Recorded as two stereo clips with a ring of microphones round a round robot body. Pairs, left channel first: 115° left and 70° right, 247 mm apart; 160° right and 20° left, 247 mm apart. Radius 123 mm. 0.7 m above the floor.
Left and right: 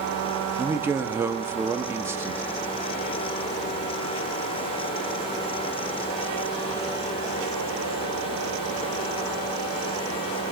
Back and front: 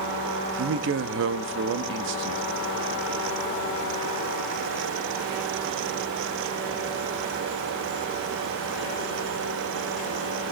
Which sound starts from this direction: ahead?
A man speaking, at 0.6 s.